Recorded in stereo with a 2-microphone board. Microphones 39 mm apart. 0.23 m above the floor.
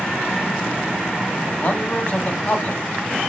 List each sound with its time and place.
1.6 s a man speaking: 45° left (ahead or behind), 1.7 m